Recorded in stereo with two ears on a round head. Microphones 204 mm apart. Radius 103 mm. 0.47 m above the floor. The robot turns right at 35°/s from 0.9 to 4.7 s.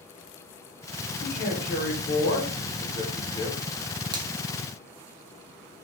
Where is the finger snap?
20° right (ahead or behind), 0.6 m.